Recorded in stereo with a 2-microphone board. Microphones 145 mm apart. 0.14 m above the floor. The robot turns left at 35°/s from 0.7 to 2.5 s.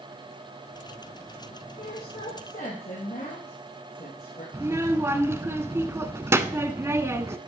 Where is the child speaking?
20° right (ahead or behind), 0.6 m.